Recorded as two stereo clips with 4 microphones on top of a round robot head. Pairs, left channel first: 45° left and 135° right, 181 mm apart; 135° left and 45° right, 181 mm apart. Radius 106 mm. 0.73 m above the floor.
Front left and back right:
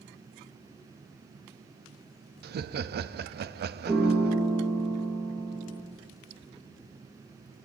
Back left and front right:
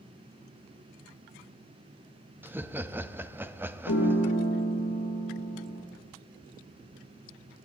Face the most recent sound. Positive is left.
turn(degrees=155)